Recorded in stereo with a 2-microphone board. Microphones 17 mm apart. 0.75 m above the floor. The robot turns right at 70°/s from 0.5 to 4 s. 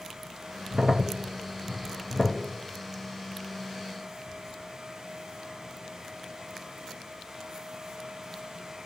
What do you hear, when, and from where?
0.7 s a crack: 50° right (ahead or behind), 0.7 m; by 2.4 s 40° left (ahead or behind), 0.7 m